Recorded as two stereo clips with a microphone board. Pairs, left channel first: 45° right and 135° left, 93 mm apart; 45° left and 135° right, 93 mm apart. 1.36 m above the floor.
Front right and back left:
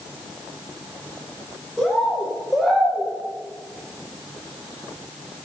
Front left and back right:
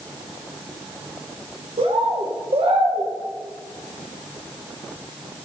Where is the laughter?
I don't hear laughter.